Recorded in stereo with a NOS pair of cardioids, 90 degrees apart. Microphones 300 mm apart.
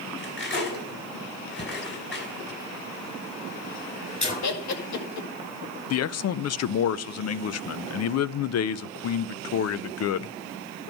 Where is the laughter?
60° left, 2 m.